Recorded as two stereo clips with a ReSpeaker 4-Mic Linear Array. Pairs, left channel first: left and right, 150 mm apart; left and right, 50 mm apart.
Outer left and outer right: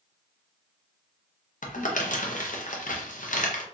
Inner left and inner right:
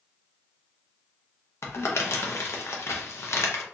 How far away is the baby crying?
I don't hear a baby crying.